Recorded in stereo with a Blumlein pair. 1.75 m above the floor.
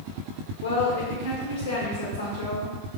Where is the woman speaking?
50° left, 1.0 m.